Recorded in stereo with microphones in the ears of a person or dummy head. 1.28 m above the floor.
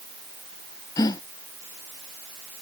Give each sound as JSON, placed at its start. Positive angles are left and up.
{"t": 1.0, "sound": "a gasp", "side_deg": 20}